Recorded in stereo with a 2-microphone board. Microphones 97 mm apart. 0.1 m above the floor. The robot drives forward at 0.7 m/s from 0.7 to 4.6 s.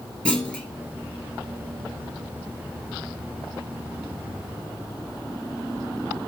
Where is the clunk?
10° left (ahead or behind), 1.4 m.